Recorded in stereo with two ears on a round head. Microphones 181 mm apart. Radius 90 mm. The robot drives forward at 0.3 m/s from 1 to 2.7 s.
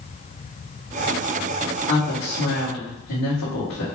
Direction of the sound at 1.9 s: 80° left.